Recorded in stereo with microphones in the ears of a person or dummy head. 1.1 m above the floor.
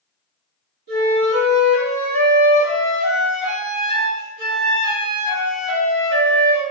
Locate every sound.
0.9 s a flute: 45° right (ahead or behind), 1.6 m